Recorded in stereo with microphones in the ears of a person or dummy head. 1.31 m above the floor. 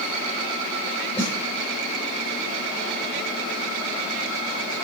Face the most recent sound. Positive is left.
turn(degrees=10)  # may be behind; listen again after turning